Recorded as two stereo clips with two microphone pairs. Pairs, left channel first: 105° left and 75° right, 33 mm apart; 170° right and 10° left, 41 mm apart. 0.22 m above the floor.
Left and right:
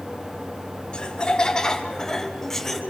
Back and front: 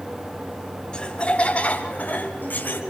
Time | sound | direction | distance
0.9 | laughter | 140° left | 1.8 m